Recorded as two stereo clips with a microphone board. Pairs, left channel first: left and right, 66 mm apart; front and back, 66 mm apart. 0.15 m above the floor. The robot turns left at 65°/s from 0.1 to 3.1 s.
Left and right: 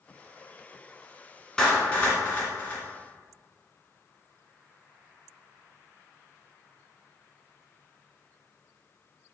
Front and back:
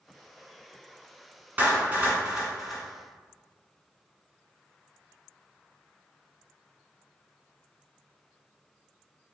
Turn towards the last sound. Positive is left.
turn(degrees=65)